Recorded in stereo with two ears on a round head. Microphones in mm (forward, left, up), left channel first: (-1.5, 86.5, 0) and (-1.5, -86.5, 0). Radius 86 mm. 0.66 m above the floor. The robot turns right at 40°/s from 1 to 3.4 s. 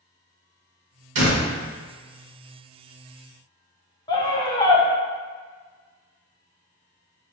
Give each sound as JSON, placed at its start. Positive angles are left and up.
{"t": 1.1, "sound": "a door slam", "side_deg": -70, "distance_m": 1.8}
{"t": 4.1, "sound": "a scream", "side_deg": 20, "distance_m": 0.7}